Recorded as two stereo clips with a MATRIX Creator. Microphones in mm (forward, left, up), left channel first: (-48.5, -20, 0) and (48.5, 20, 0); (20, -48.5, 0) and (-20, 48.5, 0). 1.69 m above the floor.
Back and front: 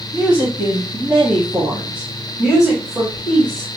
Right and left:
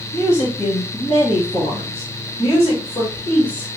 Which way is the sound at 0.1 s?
50° right.